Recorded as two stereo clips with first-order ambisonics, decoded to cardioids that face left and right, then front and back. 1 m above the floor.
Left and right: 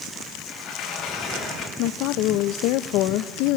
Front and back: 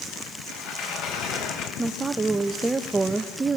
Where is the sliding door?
35° left, 4 m.